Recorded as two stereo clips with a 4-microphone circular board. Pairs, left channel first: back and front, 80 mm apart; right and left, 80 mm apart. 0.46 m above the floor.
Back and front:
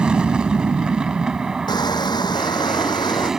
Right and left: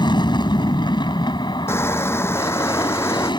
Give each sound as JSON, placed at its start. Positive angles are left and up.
{"t": 0.0, "sound": "an aircraft", "azimuth_deg": -80}
{"t": 1.7, "sound": "crushing", "azimuth_deg": -150}